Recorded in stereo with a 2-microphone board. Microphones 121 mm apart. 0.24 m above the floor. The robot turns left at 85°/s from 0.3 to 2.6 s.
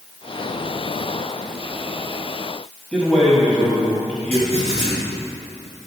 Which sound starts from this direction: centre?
A man speaking, at 2.9 s.